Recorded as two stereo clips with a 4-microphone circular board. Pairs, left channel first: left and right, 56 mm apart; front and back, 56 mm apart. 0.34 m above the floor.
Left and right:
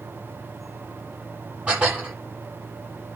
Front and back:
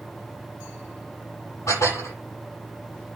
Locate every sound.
1.7 s dishes clattering: 20° right, 8 m